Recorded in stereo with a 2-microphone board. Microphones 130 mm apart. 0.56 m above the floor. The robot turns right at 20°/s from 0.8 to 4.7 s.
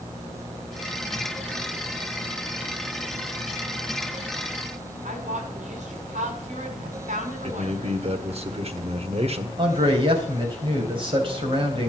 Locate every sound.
5.0 s a woman speaking: 65° right (ahead or behind), 5.5 m
7.4 s a man speaking: 50° right (ahead or behind), 1.4 m
9.6 s a man speaking: 40° right (ahead or behind), 3.5 m